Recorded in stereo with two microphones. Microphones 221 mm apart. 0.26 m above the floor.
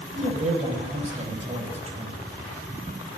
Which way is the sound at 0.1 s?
30° right (ahead or behind).